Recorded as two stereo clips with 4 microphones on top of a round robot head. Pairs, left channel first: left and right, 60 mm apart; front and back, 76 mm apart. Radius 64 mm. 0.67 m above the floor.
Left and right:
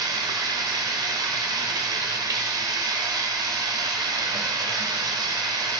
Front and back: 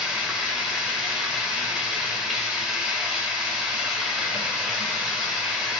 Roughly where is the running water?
Right.